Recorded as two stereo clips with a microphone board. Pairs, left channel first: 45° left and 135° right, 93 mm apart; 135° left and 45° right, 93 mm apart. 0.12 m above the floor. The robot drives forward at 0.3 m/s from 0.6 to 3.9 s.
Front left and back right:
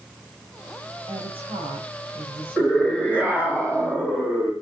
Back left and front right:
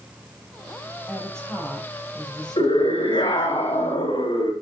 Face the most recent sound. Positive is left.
turn(degrees=150)